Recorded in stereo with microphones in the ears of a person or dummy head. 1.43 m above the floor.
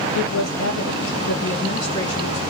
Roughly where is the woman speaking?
Left.